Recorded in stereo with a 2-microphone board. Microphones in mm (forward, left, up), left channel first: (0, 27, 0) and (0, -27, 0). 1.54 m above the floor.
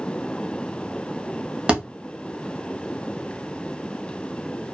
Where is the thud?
20° right (ahead or behind), 0.9 m.